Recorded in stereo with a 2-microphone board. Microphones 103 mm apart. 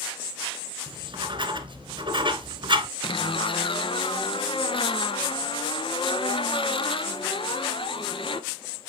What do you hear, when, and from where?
0.9 s writing: 50° right (ahead or behind), 1.1 m
3.0 s a zipper: 60° left (ahead or behind), 0.7 m